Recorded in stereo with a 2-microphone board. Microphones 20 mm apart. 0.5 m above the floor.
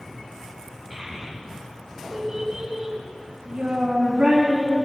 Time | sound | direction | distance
0.9 | a child speaking | 5° left (ahead or behind) | 2.5 m